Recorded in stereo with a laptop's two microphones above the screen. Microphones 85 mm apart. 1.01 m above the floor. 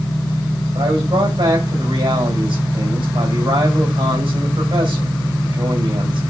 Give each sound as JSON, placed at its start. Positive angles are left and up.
{"t": 0.8, "sound": "a man speaking", "side_deg": -80, "distance_m": 5.0}